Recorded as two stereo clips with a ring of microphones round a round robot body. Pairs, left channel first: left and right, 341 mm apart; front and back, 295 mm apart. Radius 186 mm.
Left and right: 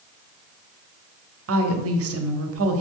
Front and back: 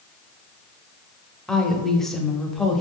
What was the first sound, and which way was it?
A woman speaking, 90° right.